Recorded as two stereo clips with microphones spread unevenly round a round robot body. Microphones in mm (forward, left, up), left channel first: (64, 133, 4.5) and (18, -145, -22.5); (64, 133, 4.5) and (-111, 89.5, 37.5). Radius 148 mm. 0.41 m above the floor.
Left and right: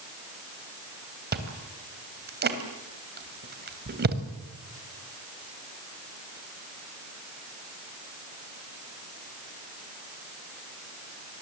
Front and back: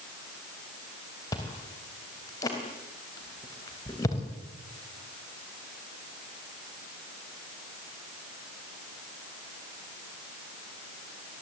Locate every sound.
1.3 s chewing: 55° right, 3 m